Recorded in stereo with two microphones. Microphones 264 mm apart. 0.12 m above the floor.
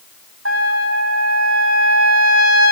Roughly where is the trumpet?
Right.